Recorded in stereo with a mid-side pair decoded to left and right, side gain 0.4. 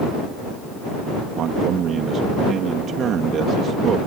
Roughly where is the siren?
I don't hear a siren.